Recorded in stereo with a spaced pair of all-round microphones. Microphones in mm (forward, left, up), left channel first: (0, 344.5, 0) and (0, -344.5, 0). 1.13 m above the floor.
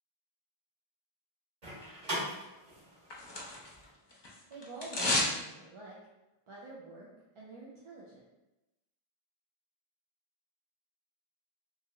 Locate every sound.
1.6 s a door slam: 65° right (ahead or behind), 1.2 m
3.1 s tearing paper: 40° left (ahead or behind), 0.6 m
4.5 s a woman speaking: 50° right (ahead or behind), 0.5 m